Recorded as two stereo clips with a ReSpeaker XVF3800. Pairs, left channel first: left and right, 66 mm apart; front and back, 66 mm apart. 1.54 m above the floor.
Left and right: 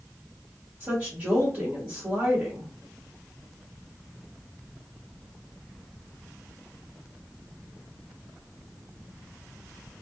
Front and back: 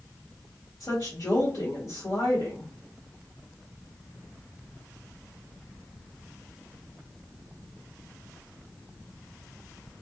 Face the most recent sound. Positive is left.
turn(degrees=-40)